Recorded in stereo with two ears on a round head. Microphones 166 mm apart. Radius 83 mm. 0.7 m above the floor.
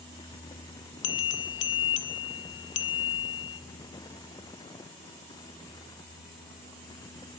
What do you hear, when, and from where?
1.0 s a bell: 70° left (ahead or behind), 1.9 m